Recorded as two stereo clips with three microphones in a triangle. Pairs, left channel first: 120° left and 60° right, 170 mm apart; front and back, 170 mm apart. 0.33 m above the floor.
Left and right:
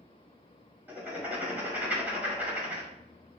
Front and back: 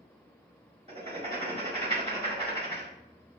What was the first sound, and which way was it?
Writing, 140° right.